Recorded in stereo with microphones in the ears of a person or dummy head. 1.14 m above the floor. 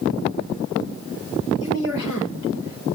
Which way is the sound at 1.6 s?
75° left (ahead or behind).